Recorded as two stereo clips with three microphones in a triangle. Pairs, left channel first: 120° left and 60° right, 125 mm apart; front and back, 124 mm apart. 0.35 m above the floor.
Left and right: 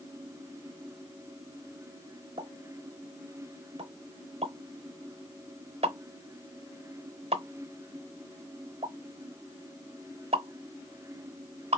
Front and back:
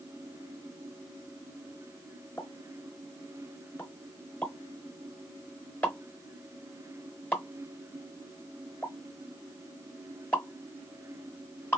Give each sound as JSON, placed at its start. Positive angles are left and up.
{"t": 2.4, "sound": "a pop", "azimuth_deg": -70, "distance_m": 0.8}